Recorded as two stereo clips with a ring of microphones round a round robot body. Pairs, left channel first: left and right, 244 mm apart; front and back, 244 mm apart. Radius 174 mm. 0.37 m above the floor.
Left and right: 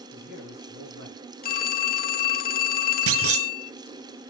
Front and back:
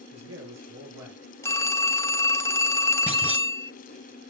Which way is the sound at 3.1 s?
95° right.